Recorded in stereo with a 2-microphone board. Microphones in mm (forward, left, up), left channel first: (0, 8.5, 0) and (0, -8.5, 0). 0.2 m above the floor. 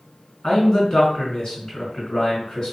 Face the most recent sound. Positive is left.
turn(degrees=50)  # may be behind; listen again after turning